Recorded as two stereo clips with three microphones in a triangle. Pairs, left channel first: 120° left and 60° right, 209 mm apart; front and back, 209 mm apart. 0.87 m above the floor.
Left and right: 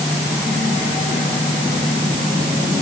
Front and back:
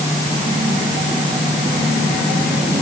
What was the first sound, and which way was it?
Only background noise.